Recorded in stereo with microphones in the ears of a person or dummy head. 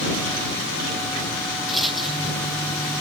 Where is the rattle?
Centre (ahead or behind).